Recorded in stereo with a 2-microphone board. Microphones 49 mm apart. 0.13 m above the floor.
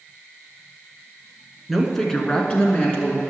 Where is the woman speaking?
Centre (ahead or behind), 1.2 m; by 3.2 s 35° left (ahead or behind), 1.5 m.